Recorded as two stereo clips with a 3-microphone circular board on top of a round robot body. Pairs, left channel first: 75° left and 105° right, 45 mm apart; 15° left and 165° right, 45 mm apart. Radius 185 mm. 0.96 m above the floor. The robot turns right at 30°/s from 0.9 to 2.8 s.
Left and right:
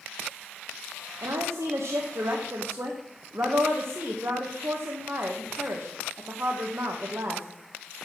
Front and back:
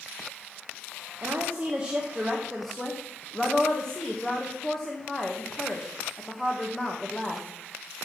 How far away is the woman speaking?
About 1.2 m.